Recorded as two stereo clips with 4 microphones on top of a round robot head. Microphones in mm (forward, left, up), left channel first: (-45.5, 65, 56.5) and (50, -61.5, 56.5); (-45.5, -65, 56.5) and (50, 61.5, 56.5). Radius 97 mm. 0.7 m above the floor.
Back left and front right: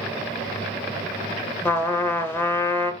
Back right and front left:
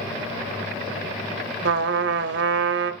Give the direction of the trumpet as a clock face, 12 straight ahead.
10 o'clock.